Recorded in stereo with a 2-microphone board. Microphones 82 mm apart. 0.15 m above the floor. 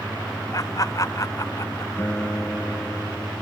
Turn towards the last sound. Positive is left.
turn(degrees=25)  # may be behind; listen again after turning